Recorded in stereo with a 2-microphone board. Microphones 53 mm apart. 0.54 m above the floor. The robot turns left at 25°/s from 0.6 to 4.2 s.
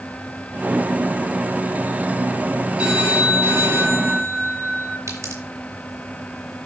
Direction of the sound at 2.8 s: 25° right.